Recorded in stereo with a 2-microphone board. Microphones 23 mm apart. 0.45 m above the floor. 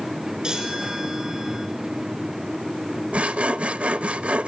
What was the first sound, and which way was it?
A chime, 35° right (ahead or behind).